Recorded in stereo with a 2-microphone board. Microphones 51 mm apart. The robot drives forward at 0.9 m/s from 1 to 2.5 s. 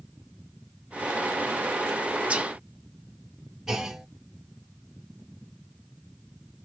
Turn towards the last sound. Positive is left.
turn(degrees=-10)  # may be behind; listen again after turning